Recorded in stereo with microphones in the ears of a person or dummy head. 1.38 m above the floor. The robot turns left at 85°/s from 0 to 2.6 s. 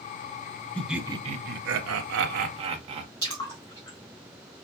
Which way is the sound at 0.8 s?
10° left.